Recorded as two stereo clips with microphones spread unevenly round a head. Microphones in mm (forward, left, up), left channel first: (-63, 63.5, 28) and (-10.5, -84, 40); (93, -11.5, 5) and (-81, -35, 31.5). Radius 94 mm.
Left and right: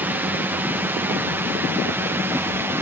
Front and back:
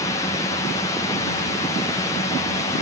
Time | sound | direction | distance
0.0 | a drone | straight ahead | ?